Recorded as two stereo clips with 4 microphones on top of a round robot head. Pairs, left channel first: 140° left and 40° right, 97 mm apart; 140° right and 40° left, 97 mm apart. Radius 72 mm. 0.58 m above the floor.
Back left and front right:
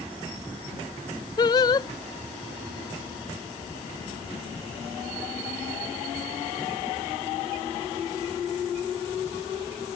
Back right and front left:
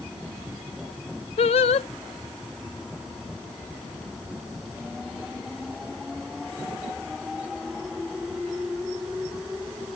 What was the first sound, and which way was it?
Singing, 170° right.